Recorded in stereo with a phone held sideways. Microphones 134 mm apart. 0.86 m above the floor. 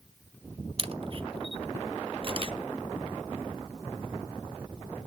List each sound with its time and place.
0.8 s a camera shutter: 40° right (ahead or behind), 0.6 m